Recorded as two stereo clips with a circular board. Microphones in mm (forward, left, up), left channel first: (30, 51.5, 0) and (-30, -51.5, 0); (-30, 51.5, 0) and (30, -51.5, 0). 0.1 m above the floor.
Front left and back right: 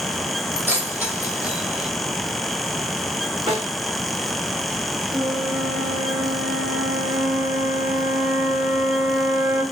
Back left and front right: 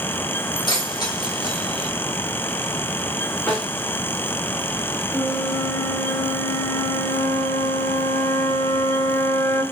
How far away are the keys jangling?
About 3 m.